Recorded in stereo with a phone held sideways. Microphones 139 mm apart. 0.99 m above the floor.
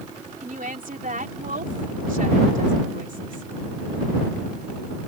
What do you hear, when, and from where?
0.4 s a woman speaking: 70° right (ahead or behind)